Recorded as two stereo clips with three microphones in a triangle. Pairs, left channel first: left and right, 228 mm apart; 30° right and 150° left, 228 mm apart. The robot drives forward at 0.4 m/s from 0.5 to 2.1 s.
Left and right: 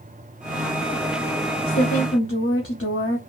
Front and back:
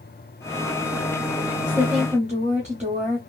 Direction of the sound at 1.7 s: 80° left.